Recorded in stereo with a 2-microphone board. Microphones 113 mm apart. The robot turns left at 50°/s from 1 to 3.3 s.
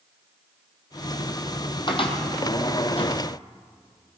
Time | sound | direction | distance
1.9 | a cupboard door | 45° left (ahead or behind) | 2 m